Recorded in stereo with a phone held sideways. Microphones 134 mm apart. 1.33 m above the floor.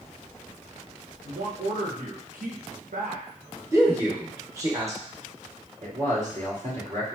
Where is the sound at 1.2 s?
85° right, 1.1 m.